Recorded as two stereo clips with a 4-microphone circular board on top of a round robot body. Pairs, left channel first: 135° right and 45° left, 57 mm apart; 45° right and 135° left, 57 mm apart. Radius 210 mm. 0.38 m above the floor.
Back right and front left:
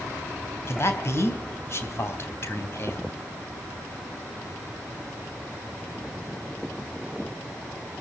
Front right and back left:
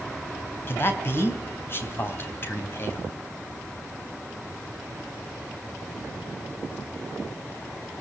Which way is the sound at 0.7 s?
95° right.